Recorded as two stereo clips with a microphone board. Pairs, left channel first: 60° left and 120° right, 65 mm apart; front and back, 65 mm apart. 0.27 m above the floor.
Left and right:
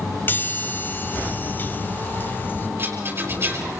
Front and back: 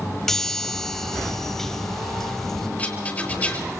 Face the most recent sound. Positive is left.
turn(degrees=-70)